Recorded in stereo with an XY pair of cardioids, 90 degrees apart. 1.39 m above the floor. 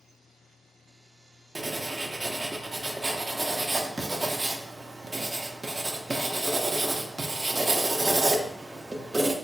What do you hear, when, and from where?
1.6 s writing: 15° right, 0.6 m